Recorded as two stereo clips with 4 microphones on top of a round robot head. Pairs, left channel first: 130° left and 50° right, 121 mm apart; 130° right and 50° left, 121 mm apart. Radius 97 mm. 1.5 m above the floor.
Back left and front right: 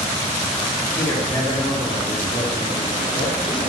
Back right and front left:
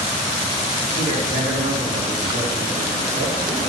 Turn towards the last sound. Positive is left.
turn(degrees=70)